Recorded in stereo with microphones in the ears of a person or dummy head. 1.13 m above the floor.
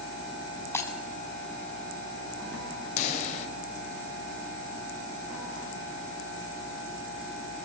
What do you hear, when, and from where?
0.7 s breaking glass: 10° left (ahead or behind), 4 m
3.0 s a pop: 35° left (ahead or behind), 5 m